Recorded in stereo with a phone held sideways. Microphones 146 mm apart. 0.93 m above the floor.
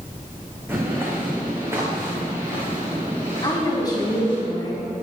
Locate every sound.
0.7 s footsteps: 15° right (ahead or behind), 3.5 m; by 4.4 s 20° right (ahead or behind), 8 m
3.4 s a woman speaking: 25° left (ahead or behind), 6 m